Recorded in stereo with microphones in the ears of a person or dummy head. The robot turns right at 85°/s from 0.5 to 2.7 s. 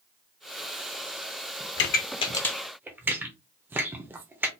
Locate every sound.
1.8 s a pop: 55° left (ahead or behind), 0.6 m; by 4.5 s 10° right (ahead or behind), 0.6 m